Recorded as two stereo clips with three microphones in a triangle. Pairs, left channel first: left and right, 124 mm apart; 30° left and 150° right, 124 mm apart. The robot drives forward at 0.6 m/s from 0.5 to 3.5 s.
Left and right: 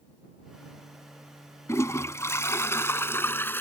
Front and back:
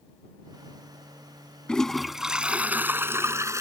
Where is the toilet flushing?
105° left; by 3.6 s 155° left.